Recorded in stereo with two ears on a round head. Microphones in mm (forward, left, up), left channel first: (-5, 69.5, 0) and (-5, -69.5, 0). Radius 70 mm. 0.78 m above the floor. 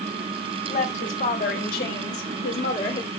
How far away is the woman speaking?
About 3.5 m.